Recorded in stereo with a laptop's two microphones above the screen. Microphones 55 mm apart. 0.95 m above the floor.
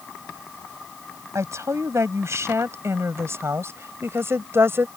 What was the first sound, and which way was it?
A woman speaking, 60° right (ahead or behind).